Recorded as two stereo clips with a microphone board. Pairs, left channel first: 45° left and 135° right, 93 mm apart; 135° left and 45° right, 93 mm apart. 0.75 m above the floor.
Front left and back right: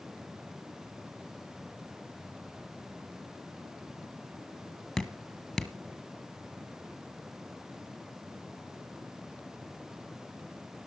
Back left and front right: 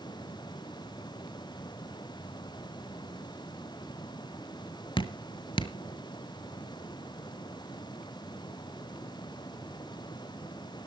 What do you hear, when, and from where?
5.0 s dripping: 130° left, 1.0 m